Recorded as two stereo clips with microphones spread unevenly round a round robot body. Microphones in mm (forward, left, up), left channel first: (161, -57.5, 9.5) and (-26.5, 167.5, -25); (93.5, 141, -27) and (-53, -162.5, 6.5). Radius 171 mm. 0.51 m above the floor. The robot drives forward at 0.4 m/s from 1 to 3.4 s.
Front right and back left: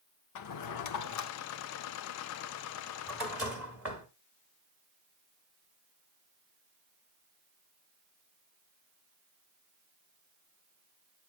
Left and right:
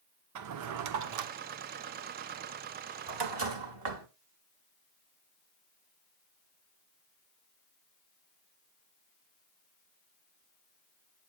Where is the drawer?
80° right, 0.7 m; by 4.1 s 145° right, 1.1 m.